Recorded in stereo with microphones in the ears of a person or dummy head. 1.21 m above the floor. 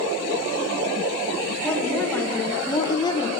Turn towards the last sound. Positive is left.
turn(degrees=25)  # may be behind; listen again after turning